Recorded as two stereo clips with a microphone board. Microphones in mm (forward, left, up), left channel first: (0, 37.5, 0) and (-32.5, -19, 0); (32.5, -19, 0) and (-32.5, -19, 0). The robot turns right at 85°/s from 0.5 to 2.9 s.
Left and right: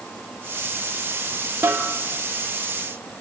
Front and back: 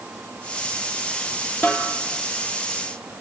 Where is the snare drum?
65° right, 3.5 m; by 1.9 s 40° right, 3.5 m.